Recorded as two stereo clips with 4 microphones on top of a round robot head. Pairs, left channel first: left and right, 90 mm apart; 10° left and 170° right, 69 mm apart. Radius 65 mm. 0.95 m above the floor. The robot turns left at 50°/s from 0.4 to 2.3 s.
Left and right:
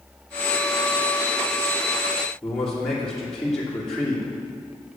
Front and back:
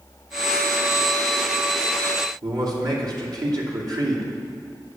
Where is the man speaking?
175° left, 2.5 m.